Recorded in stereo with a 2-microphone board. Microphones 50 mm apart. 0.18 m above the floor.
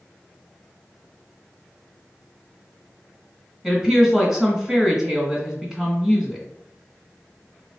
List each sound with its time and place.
3.6 s a woman speaking: 10° right (ahead or behind), 1.4 m